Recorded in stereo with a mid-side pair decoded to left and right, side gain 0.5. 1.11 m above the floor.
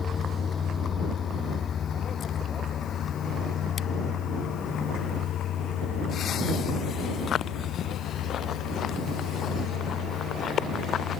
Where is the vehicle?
35° left; by 11.2 s 70° left.